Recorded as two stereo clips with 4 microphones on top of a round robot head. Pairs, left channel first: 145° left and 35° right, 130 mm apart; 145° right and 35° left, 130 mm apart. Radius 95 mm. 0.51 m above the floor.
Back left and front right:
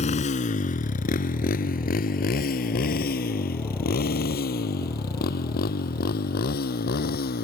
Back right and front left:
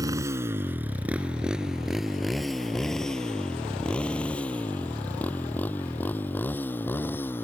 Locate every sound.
0.0 s a motorcycle: 105° left; by 7.5 s 140° left